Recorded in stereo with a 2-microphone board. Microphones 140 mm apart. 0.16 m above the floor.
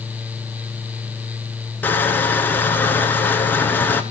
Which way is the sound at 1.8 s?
15° left (ahead or behind).